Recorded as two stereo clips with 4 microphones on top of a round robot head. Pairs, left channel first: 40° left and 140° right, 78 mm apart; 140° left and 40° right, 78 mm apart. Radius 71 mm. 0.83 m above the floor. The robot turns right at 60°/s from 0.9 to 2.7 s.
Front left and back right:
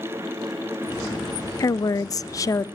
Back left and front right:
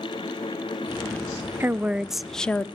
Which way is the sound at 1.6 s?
15° left.